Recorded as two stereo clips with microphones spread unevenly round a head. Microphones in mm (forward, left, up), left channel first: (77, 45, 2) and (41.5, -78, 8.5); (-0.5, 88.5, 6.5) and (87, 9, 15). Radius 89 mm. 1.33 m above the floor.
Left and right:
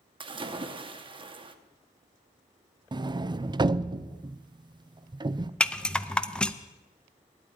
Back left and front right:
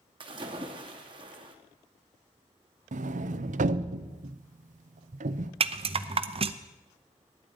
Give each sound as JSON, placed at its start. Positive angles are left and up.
{"t": 0.2, "sound": "a splash", "azimuth_deg": -75, "distance_m": 1.0}
{"t": 2.9, "sound": "a sliding door", "azimuth_deg": -50, "distance_m": 0.6}
{"t": 5.6, "sound": "a rattle", "azimuth_deg": -10, "distance_m": 0.6}